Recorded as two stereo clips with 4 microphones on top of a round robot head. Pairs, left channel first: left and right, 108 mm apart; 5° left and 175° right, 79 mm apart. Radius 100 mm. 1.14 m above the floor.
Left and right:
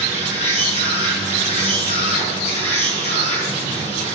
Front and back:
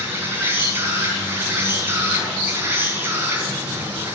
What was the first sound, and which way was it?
An insect, 120° left.